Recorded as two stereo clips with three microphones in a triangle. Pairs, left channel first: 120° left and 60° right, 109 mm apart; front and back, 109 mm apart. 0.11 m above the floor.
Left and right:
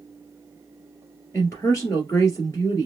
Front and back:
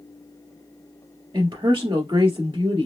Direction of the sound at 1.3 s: 170° left.